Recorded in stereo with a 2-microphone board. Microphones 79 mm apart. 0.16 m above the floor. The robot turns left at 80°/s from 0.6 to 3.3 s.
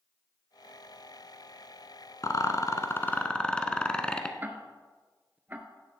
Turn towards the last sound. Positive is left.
turn(degrees=-25)  # may be behind; listen again after turning